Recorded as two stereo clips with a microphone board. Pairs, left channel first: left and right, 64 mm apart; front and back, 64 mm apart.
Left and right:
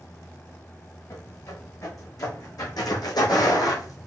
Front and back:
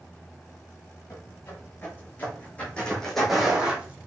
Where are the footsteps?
50° left, 3.5 m; by 4.1 s 120° left, 1.7 m.